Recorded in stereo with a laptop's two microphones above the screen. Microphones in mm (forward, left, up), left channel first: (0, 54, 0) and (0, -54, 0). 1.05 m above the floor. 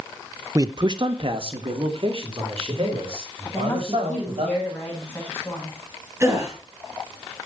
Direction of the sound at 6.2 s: 25° right (ahead or behind).